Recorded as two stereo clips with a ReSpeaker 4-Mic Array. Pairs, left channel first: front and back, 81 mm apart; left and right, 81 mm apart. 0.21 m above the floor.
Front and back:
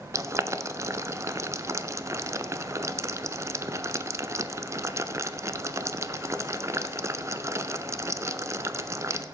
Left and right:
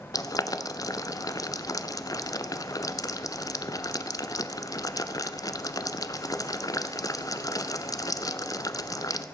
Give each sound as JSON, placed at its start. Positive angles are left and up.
{"t": 0.1, "sound": "boiling", "azimuth_deg": 130, "distance_m": 0.6}